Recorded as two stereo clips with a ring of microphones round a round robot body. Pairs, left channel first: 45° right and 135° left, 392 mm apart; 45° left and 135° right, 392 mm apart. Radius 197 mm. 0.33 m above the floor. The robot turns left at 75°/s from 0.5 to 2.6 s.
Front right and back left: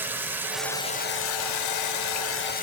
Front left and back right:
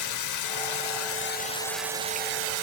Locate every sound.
0.0 s running water: 50° left, 0.9 m; by 2.6 s 105° right, 0.9 m